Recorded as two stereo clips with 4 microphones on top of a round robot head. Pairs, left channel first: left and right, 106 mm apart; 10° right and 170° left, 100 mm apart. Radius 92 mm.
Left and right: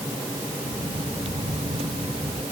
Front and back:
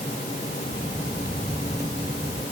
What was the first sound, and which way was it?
Footsteps, 120° right.